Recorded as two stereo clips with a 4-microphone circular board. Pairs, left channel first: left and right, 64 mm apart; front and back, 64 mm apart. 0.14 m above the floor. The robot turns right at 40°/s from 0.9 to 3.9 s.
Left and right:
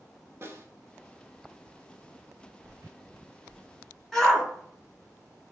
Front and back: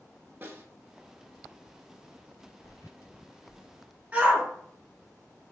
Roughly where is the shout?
Behind.